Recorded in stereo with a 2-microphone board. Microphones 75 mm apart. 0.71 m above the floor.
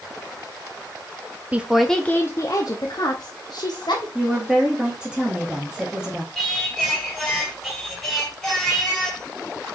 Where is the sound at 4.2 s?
10° right (ahead or behind), 1.1 m.